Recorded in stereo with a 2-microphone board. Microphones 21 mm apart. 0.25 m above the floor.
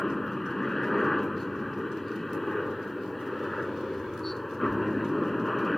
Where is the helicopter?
10° left (ahead or behind).